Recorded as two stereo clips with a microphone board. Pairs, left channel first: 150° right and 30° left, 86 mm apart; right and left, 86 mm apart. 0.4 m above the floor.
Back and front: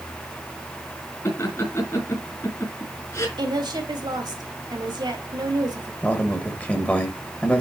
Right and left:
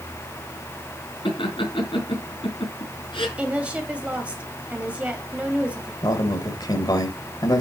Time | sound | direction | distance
1.2 | laughter | 100° right | 4.5 m
3.4 | a woman speaking | 15° left | 2.0 m
6.0 | a man speaking | 85° right | 1.9 m